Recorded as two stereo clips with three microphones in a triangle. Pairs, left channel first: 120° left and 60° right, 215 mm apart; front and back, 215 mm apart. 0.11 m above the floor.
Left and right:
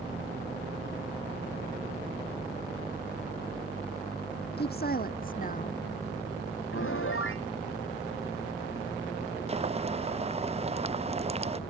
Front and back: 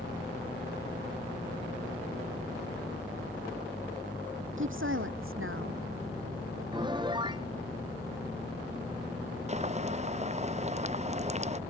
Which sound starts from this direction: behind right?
Boiling, at 9.5 s.